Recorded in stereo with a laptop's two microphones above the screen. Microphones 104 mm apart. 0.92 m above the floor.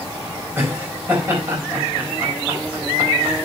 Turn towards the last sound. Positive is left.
turn(degrees=-20)  # may be behind; listen again after turning